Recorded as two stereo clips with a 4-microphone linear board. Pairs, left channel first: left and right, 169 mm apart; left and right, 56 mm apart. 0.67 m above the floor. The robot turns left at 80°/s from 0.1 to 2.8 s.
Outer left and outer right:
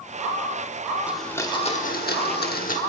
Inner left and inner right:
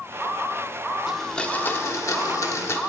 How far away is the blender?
About 1.1 m.